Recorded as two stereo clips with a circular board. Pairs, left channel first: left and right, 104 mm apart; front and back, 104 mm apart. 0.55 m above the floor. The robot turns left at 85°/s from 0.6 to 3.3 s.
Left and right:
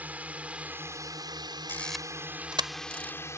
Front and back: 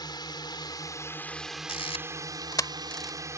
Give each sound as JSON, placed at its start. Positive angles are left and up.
{"t": 0.0, "sound": "a drone", "azimuth_deg": -20}
{"t": 1.7, "sound": "a camera shutter", "azimuth_deg": 25}